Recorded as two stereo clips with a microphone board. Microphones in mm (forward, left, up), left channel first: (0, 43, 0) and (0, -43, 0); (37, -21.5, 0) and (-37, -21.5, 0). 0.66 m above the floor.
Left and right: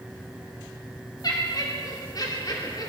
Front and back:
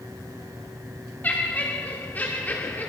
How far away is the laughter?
About 2 m.